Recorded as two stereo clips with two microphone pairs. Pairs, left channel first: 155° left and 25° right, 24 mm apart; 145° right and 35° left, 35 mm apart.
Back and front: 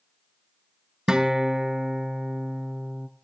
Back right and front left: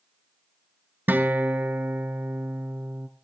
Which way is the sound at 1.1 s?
30° left.